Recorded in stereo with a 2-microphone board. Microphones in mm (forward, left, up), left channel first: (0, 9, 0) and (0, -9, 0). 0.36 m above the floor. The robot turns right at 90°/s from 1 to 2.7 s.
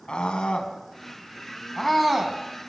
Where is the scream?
65° left (ahead or behind), 3.5 m; by 2.4 s 40° right (ahead or behind), 3.5 m.